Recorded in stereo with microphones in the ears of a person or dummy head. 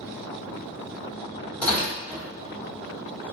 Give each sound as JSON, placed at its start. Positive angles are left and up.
{"t": 1.6, "sound": "tearing paper", "side_deg": 10, "distance_m": 1.8}